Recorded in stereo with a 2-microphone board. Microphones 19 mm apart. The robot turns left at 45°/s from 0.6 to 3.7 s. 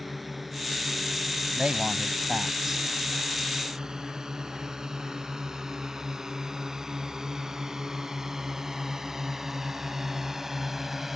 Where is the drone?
5° right (ahead or behind); by 11.2 s 15° right (ahead or behind).